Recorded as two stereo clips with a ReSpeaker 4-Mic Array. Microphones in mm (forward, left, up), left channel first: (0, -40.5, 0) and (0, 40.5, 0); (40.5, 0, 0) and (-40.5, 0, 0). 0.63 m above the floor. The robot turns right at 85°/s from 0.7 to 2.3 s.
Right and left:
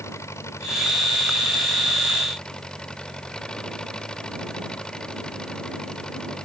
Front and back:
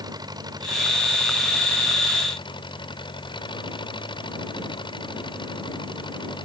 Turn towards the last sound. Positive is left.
turn(degrees=-10)